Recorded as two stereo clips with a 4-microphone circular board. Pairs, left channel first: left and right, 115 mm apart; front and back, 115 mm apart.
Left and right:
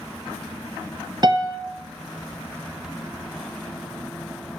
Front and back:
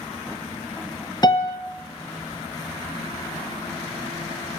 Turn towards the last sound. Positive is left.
turn(degrees=-45)